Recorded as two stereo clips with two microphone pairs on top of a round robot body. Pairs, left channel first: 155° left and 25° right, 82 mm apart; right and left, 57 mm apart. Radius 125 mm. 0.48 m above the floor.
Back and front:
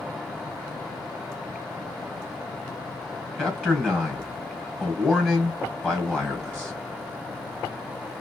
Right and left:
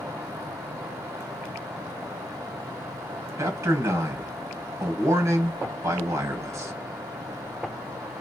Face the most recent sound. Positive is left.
turn(degrees=80)